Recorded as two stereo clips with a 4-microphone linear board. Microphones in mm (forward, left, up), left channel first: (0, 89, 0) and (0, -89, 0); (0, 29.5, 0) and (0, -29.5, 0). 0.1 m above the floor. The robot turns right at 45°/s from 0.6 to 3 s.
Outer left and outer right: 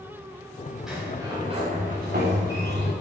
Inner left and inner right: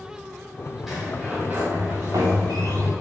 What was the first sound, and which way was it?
A sliding door, 175° right.